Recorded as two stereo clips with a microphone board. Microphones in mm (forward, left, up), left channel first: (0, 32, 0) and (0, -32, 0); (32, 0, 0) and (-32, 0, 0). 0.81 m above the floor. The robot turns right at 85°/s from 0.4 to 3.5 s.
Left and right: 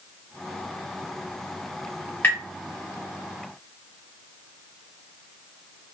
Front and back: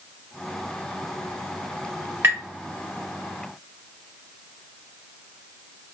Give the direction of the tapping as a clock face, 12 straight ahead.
7 o'clock.